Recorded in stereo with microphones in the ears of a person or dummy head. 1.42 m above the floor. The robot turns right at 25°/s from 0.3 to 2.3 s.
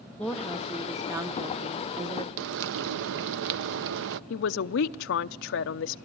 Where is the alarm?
I don't hear an alarm.